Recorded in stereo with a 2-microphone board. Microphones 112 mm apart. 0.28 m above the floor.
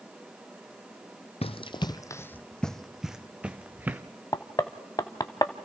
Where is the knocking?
35° left (ahead or behind), 0.9 m.